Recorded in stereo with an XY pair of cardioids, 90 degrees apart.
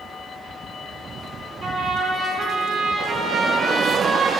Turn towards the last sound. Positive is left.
turn(degrees=-60)